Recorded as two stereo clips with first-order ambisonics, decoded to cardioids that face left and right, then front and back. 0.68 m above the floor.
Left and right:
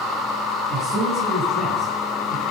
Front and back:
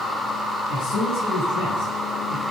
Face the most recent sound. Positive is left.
turn(degrees=-20)